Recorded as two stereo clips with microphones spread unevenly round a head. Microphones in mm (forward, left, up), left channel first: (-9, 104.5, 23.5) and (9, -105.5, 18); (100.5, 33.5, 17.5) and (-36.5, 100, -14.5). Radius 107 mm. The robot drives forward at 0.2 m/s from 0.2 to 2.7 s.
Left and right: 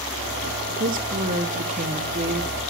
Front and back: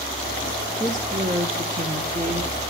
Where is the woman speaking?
135° right, 1.3 m; by 2.6 s 145° right, 1.5 m.